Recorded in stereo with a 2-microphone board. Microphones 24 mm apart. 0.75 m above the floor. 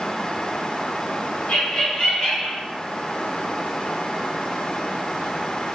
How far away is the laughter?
About 1.6 m.